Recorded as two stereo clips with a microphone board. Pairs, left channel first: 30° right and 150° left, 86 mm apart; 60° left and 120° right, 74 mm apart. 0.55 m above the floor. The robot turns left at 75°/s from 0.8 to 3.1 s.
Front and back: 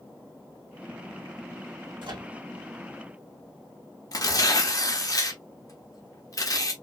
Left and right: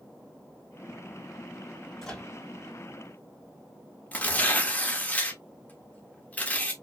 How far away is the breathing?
I don't hear breathing.